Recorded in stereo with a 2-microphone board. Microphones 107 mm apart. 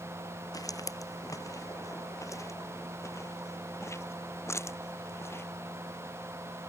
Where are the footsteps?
35° left (ahead or behind); by 5.4 s 25° left (ahead or behind).